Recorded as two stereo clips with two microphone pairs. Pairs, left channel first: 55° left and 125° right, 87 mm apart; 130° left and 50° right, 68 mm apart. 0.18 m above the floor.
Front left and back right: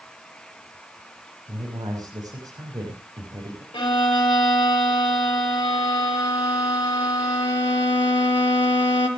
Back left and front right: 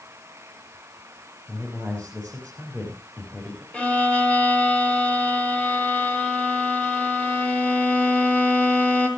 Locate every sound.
1.5 s a man speaking: 160° right, 6 m
3.7 s a violin: 60° left, 5 m